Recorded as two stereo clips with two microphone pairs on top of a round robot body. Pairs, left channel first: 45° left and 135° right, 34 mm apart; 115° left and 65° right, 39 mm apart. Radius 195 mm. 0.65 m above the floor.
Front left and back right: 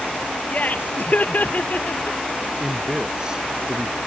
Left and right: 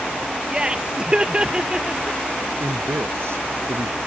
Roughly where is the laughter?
Ahead.